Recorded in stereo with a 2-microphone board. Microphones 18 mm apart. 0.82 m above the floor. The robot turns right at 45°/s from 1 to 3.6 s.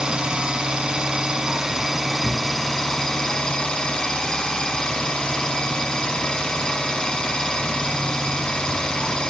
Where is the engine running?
55° right, 2.5 m; by 9.3 s 65° left, 2.5 m.